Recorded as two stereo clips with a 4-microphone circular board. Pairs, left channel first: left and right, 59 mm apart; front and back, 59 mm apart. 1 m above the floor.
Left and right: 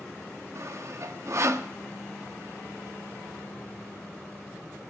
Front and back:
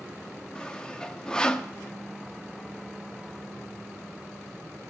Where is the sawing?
75° right, 0.6 m.